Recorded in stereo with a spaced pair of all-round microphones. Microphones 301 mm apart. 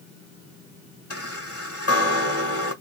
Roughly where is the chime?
Left.